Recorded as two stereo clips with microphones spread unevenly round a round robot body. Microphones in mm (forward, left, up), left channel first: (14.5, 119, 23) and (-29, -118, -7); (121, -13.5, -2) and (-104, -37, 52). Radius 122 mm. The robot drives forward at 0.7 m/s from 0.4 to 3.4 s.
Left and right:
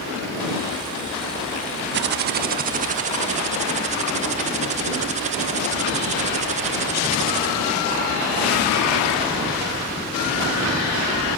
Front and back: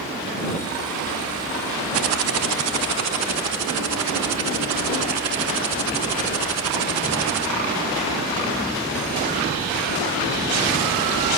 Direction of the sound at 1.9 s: 145° right.